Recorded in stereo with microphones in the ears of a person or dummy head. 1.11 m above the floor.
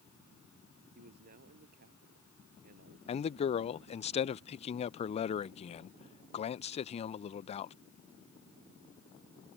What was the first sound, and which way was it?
A man speaking, 55° right (ahead or behind).